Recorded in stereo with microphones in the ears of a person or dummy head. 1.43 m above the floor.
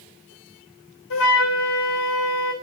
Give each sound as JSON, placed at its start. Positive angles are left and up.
{"t": 1.1, "sound": "a flute", "side_deg": 60, "distance_m": 1.3}